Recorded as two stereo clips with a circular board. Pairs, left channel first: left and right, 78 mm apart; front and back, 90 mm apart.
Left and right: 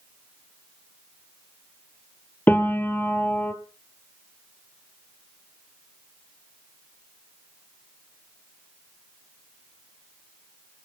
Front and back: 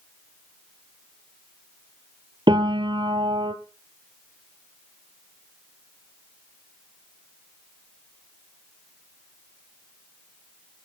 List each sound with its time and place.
2.5 s a piano: 155° left, 1.8 m